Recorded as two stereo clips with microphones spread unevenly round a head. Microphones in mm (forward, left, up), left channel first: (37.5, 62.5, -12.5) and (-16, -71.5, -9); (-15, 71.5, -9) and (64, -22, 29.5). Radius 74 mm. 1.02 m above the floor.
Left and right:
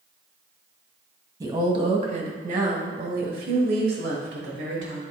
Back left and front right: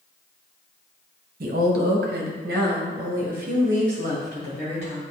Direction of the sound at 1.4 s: 45° right.